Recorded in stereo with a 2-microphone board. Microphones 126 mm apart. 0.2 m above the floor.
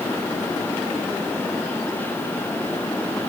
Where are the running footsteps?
I don't hear running footsteps.